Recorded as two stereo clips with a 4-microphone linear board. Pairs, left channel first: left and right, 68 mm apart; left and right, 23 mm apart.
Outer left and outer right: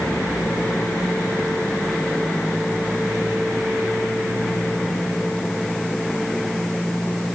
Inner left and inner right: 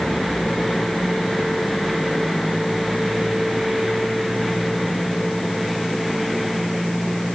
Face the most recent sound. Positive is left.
No sound to turn to.